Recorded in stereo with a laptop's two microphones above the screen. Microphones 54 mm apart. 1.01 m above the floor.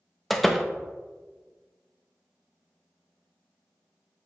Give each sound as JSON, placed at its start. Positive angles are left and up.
{"t": 0.3, "sound": "a door slam", "side_deg": 5, "distance_m": 0.6}